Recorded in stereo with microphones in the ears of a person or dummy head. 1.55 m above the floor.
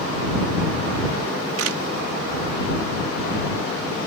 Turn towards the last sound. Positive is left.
turn(degrees=-85)